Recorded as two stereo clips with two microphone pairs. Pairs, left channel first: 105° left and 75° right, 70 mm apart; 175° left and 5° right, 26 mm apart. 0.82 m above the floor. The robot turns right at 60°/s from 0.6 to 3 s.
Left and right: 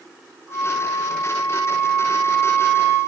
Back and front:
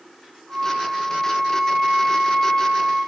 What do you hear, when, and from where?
0.5 s a flute: 5° right, 8.5 m; by 3.0 s 135° left, 8.5 m